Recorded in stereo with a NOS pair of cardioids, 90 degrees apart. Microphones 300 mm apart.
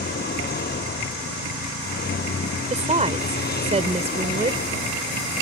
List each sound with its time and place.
0.0 s a vehicle: 35° left
2.7 s a woman speaking: 20° right